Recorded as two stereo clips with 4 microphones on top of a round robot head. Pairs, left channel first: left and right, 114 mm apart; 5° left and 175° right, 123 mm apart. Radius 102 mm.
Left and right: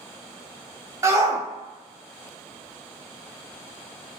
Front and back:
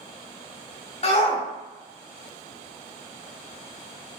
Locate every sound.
1.0 s a shout: 25° right, 1.6 m